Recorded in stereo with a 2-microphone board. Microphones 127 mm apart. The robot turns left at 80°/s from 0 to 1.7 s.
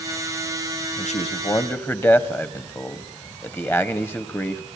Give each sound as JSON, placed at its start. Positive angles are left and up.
{"t": 1.0, "sound": "a man speaking", "azimuth_deg": 75, "distance_m": 1.4}